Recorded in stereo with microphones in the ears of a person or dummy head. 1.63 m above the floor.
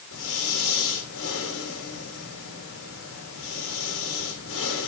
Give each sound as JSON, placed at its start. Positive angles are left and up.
{"t": 0.1, "sound": "breathing", "side_deg": 85, "distance_m": 3.5}